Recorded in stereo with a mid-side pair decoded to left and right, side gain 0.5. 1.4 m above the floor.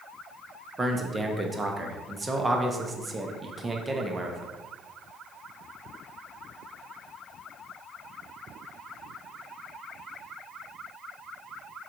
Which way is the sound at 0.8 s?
20° right.